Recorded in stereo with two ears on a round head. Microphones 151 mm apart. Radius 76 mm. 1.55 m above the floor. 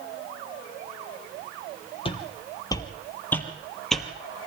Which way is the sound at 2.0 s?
35° left (ahead or behind).